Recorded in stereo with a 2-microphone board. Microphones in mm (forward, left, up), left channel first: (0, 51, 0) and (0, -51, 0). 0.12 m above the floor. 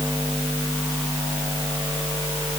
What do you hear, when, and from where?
Only background noise.